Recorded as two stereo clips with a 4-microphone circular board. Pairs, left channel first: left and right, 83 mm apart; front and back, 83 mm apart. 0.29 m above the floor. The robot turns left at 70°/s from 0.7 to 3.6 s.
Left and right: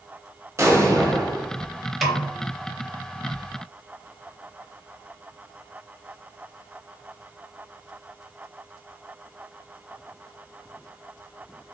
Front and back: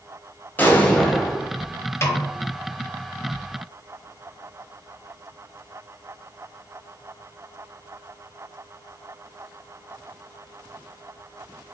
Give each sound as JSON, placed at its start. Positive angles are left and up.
{"t": 0.6, "sound": "an explosion", "azimuth_deg": -55, "distance_m": 0.8}
{"t": 2.0, "sound": "a snare drum", "azimuth_deg": 0, "distance_m": 0.6}